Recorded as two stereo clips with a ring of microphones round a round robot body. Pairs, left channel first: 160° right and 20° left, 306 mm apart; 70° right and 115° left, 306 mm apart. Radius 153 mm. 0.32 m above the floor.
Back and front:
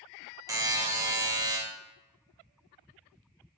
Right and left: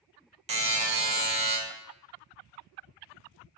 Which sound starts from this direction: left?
A buzzer, at 0.5 s.